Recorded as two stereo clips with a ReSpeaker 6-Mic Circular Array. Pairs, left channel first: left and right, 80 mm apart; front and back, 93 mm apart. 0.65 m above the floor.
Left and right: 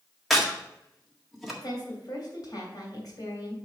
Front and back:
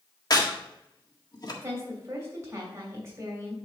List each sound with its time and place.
0.3 s a crack: straight ahead, 1.6 m
1.6 s a woman speaking: 120° left, 2.5 m